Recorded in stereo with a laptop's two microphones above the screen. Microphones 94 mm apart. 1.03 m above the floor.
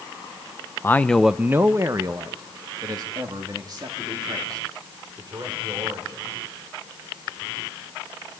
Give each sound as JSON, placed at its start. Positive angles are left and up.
{"t": 0.8, "sound": "a man speaking", "side_deg": 25, "distance_m": 0.5}